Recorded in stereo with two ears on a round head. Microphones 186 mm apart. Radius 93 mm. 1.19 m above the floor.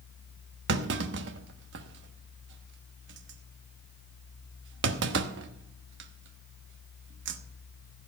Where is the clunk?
60° right (ahead or behind), 1.1 m.